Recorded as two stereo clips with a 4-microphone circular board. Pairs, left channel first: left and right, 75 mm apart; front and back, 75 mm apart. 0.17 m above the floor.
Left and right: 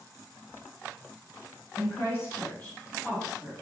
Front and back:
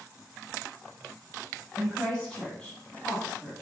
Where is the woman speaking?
75° left, 1.4 m; by 3.5 s 10° right, 1.1 m.